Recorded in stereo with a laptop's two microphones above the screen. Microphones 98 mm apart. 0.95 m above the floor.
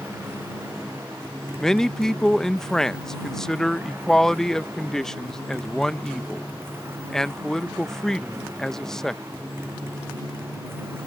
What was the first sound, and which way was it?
A motorcycle, 25° right (ahead or behind).